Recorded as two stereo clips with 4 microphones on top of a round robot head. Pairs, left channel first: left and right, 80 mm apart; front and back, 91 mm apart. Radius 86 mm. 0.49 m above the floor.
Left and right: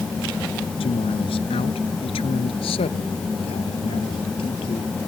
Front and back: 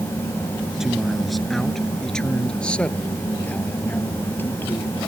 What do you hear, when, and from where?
0.8 s a man speaking: 95° left; by 5.0 s 65° left